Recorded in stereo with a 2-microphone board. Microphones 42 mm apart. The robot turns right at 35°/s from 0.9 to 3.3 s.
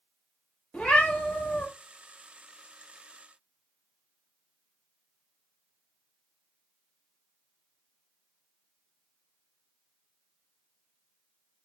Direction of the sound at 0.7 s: 20° left (ahead or behind).